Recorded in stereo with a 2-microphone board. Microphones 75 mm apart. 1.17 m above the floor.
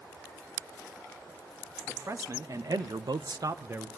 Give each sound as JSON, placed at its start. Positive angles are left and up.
{"t": 1.9, "sound": "a man speaking", "side_deg": -40, "distance_m": 1.8}